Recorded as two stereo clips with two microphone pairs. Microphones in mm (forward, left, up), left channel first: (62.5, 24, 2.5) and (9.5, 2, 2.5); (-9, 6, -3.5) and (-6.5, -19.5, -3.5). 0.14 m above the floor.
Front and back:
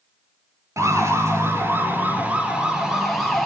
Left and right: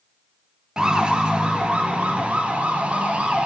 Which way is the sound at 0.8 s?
145° right.